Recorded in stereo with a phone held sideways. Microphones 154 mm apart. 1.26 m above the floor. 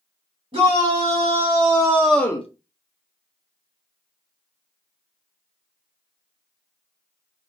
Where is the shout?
40° right (ahead or behind), 2.5 m; by 2.5 s 45° left (ahead or behind), 0.5 m.